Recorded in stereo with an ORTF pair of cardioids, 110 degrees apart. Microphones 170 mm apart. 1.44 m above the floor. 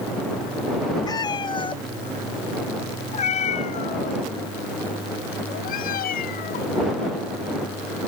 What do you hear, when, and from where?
1.1 s a cat meowing: 25° left; by 6.8 s 65° left